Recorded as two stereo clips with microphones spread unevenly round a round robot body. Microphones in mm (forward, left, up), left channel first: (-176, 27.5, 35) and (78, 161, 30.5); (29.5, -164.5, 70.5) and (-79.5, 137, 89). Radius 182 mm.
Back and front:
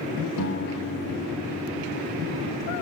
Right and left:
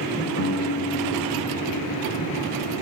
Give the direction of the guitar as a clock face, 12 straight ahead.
3 o'clock.